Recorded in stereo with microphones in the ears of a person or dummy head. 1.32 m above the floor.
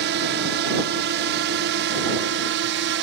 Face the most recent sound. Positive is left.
turn(degrees=-60)  # may be behind; listen again after turning